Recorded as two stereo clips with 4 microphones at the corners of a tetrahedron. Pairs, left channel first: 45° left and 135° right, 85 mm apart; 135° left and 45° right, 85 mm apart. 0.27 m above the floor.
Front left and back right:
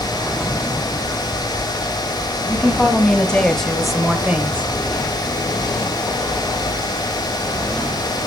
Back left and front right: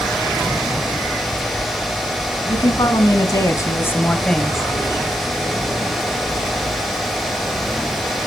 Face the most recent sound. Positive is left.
turn(degrees=-110)